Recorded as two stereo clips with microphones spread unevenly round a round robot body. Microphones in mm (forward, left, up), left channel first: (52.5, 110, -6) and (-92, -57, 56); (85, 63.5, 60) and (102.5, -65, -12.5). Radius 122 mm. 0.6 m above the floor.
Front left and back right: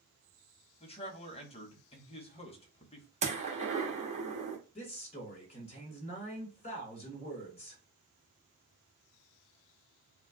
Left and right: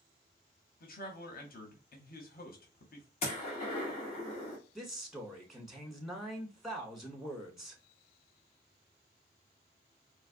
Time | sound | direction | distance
0.8 | a man speaking | 80° left | 1.3 m
3.2 | a gunshot | 165° left | 1.3 m
4.8 | a man speaking | 5° right | 2 m